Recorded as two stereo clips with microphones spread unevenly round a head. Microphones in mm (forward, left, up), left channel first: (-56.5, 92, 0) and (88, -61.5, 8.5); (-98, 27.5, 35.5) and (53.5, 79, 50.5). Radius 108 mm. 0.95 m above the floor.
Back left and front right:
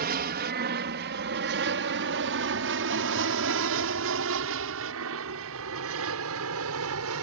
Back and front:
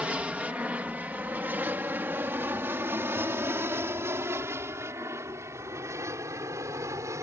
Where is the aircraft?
65° right; by 7.2 s 55° right.